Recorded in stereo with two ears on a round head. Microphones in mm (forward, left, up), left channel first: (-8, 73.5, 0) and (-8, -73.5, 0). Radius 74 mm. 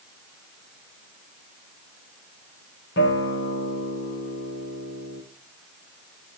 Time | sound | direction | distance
3.0 | a guitar | 75° left (ahead or behind) | 3 m